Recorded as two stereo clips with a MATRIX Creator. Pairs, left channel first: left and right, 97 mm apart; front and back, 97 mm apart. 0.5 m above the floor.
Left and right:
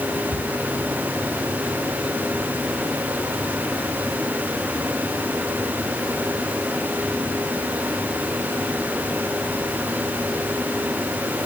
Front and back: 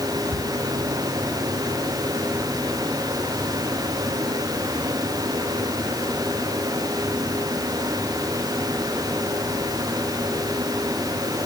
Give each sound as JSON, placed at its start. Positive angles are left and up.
{"t": 0.3, "sound": "a cupboard door", "azimuth_deg": 125, "distance_m": 7.5}